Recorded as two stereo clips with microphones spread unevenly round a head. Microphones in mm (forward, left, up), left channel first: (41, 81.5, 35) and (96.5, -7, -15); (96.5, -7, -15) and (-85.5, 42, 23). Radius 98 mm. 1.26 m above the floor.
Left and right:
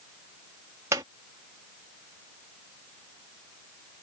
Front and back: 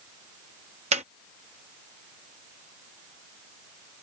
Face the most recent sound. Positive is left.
turn(degrees=-135)